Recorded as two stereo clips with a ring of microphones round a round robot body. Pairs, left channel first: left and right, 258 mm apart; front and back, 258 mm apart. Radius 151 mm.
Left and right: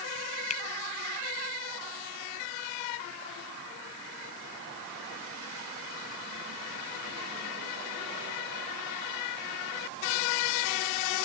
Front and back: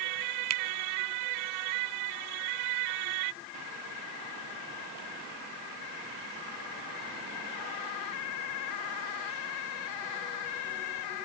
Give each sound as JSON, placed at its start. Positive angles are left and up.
{"t": 0.5, "sound": "a finger snap", "azimuth_deg": 155}